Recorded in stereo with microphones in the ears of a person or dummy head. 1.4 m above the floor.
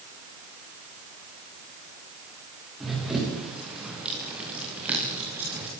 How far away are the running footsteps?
About 9 m.